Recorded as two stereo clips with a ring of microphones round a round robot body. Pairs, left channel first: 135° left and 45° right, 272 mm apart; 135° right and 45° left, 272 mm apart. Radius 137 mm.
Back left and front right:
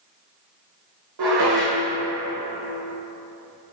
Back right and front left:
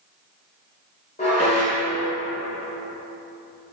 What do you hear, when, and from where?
1.2 s dishes clattering: 70° right, 1.7 m